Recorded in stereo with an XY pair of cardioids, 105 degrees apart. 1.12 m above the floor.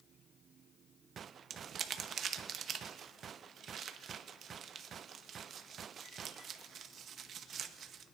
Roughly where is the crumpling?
Ahead right.